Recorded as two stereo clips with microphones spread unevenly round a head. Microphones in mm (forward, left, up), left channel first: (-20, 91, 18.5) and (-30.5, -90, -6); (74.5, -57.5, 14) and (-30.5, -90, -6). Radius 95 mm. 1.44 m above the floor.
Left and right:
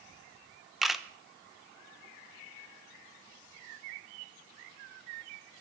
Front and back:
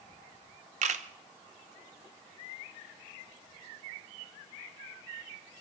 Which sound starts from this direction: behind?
A camera shutter, at 0.8 s.